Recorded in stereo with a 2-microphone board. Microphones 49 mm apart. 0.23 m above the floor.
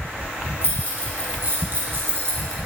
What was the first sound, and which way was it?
Keys jangling, 45° right (ahead or behind).